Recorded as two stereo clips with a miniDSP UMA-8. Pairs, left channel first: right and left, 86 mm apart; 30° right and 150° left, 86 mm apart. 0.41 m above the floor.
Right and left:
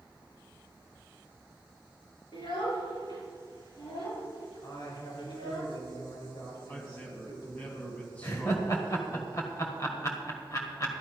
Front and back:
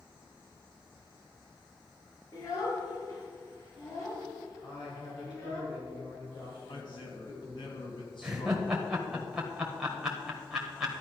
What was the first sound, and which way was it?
A child speaking, 75° right.